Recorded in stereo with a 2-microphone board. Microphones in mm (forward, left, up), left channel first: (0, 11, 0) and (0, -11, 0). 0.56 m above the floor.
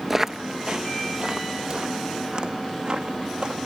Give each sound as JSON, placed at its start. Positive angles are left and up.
{"t": 0.1, "sound": "footsteps", "side_deg": -15, "distance_m": 0.5}